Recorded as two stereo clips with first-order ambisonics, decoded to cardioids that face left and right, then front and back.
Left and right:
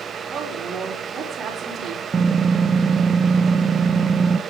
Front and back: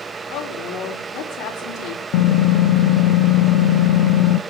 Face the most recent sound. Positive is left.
turn(degrees=-15)